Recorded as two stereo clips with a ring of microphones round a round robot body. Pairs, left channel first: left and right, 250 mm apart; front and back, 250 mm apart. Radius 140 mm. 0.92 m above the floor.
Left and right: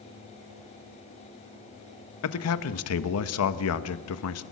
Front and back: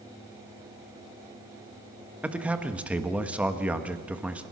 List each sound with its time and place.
2.2 s a man speaking: 95° left, 1.2 m